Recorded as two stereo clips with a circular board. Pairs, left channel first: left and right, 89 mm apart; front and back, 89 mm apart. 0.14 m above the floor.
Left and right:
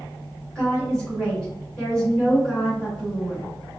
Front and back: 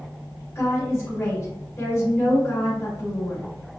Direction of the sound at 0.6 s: 20° left.